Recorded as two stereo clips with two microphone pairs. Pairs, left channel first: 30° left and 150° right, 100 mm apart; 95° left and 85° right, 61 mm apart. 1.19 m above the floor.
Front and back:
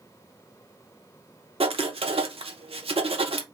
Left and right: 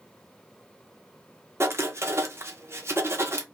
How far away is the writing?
About 0.6 m.